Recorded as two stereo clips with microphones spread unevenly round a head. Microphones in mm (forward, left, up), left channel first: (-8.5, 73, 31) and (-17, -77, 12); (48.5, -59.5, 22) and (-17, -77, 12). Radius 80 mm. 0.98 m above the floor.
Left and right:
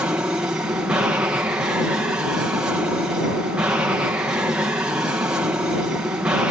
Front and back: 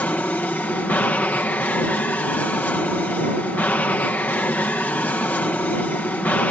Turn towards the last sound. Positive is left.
turn(degrees=-30)